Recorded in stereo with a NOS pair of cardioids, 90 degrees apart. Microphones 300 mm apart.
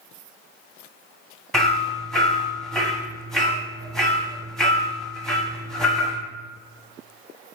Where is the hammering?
Straight ahead, 0.6 m.